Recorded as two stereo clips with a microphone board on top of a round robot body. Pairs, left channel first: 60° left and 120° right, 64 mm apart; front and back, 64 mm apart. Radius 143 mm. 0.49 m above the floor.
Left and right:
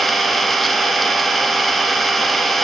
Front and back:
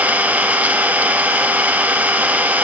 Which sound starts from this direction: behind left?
An engine running, at 0.0 s.